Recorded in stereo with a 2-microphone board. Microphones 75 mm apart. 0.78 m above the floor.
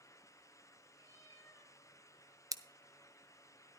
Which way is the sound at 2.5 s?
50° right (ahead or behind).